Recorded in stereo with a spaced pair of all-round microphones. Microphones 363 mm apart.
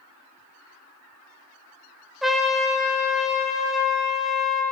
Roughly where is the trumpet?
Centre.